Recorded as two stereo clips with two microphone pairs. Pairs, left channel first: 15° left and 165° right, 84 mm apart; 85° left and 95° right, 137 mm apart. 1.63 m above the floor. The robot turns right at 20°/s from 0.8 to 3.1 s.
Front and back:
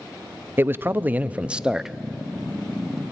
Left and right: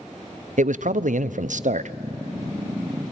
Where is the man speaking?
100° right, 0.5 m; by 2.0 s 80° right, 0.5 m.